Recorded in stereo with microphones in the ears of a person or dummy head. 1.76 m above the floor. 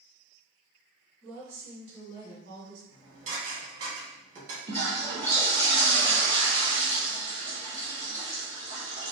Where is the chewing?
No chewing in this recording.